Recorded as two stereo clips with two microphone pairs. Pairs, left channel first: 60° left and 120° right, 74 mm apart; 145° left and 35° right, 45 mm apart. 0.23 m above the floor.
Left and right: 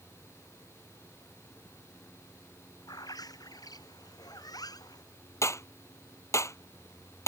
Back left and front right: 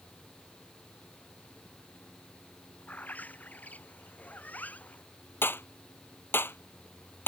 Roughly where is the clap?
Left.